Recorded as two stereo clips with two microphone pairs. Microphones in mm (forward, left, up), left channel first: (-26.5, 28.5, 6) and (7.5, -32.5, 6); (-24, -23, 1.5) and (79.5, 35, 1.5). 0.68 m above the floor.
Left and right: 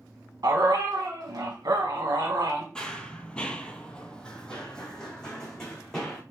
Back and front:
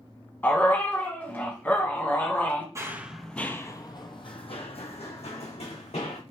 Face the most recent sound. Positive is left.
turn(degrees=-160)